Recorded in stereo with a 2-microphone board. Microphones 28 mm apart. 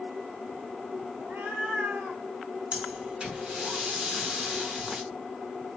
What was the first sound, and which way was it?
A cat meowing, 65° right (ahead or behind).